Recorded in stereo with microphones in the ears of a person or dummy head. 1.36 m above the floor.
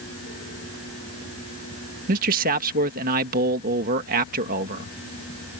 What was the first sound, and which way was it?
A man speaking, 50° right (ahead or behind).